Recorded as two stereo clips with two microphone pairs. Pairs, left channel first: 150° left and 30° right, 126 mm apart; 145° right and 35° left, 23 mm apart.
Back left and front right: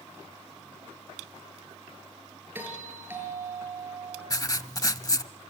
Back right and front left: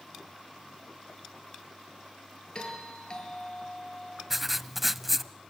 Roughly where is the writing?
Left.